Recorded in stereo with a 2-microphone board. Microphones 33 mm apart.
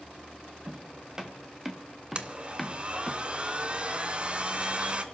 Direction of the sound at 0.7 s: 25° right (ahead or behind).